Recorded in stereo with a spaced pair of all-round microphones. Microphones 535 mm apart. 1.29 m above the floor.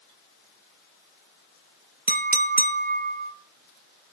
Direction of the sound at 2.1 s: 20° right (ahead or behind).